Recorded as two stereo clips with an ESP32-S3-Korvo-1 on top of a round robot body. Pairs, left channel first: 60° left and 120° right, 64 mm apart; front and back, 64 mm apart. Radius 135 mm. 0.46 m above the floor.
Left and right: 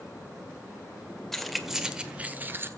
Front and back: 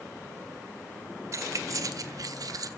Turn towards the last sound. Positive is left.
turn(degrees=-170)